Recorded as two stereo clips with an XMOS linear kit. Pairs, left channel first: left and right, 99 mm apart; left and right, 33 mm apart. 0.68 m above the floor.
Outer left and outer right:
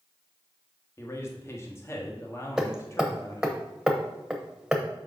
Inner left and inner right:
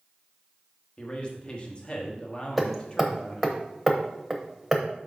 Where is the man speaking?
30° left (ahead or behind), 1.3 m.